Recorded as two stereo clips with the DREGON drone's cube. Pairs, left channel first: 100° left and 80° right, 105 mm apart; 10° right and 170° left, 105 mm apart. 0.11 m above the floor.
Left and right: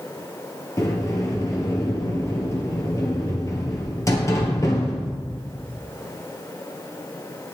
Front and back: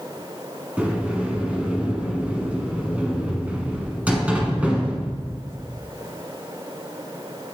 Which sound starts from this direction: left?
A sliding door, at 0.8 s.